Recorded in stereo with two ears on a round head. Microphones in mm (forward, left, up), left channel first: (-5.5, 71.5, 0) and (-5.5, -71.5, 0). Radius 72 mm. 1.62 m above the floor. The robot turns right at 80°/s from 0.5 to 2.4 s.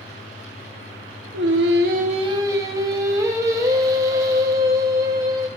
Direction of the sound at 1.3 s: 105° right.